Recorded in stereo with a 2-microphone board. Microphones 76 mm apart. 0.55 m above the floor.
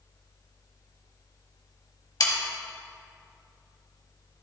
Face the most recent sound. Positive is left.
turn(degrees=65)  # may be behind; listen again after turning